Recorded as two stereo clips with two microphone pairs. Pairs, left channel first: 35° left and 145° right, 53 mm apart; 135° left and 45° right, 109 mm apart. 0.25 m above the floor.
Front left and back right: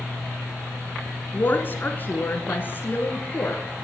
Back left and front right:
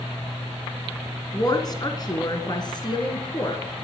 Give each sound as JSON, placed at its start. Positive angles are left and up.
{"t": 1.3, "sound": "a woman speaking", "azimuth_deg": 85, "distance_m": 2.0}